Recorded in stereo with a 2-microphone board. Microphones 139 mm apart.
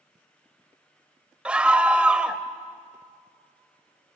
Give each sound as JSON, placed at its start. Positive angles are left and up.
{"t": 1.4, "sound": "a scream", "side_deg": -10, "distance_m": 0.9}